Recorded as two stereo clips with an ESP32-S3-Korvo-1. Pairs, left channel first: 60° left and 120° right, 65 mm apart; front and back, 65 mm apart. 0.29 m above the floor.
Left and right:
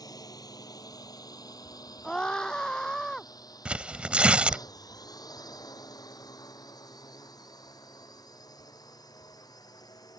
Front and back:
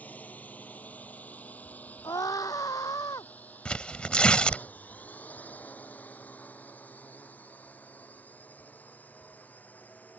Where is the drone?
65° left.